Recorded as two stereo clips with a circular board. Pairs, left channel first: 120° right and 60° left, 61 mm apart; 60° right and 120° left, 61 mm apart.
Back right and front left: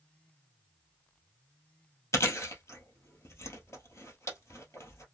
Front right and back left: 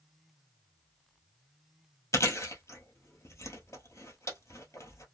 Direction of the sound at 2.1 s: 90° right.